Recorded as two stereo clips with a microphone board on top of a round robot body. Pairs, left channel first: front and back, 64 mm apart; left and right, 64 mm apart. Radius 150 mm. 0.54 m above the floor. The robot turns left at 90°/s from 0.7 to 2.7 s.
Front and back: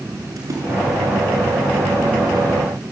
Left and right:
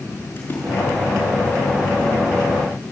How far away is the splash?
About 6.5 m.